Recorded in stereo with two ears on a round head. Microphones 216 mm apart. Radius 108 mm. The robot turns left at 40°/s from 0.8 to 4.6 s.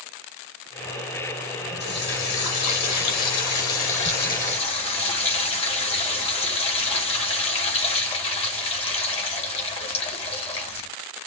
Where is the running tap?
135° left, 1.9 m; by 10.9 s 25° left, 1.9 m.